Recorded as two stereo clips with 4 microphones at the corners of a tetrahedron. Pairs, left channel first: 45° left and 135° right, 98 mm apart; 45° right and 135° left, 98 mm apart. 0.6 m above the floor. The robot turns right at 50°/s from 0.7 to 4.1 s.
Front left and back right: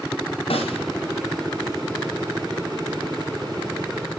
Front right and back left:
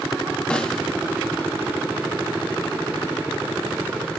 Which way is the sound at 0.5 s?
35° left.